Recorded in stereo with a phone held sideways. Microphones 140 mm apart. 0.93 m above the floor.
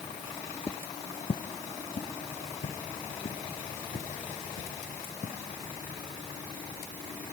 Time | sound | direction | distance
0.7 | footsteps | 20° left (ahead or behind) | 0.9 m